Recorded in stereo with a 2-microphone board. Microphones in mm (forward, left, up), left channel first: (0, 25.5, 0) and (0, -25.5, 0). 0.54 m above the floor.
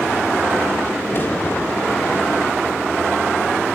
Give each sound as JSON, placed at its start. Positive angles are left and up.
{"t": 1.1, "sound": "a crack", "side_deg": 45, "distance_m": 1.4}